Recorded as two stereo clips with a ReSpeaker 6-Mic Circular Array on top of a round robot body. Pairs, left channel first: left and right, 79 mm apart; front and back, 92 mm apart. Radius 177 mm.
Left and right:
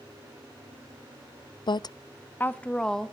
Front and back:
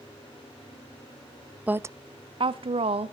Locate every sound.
1.7 s a woman speaking: 105° left, 0.5 m; by 3.1 s 175° left, 1.0 m